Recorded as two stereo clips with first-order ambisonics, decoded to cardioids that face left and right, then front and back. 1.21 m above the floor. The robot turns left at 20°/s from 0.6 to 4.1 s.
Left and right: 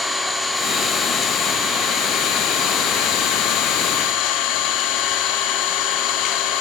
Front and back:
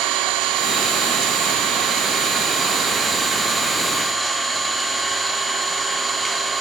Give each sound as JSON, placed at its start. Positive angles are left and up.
{"t": 0.0, "sound": "an engine running", "azimuth_deg": 170, "distance_m": 1.1}